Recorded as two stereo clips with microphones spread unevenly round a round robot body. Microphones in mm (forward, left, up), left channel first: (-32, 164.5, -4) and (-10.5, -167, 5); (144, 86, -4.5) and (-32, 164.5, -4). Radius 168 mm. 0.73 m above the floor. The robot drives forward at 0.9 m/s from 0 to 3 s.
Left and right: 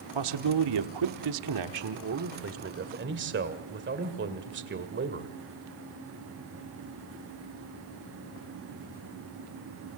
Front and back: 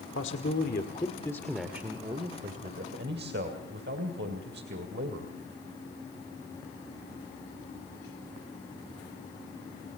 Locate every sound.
0.1 s a man speaking: 65° right, 1.6 m; by 5.3 s 145° right, 2.5 m